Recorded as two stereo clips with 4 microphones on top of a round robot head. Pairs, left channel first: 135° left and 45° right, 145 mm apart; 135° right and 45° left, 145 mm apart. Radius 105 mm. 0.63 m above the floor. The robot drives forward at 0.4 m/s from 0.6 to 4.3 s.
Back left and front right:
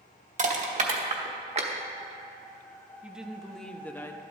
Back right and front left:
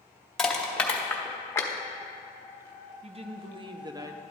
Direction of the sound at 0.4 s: 50° right.